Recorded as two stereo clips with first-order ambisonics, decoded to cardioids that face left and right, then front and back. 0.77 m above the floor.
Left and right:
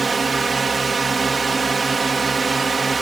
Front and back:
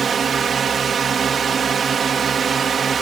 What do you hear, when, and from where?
0.0 s a drone: 150° right